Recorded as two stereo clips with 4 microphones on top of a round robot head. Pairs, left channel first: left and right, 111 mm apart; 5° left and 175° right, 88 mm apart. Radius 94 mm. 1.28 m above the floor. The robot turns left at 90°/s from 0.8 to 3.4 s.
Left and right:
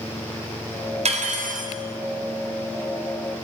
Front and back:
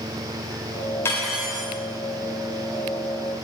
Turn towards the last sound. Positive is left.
turn(degrees=85)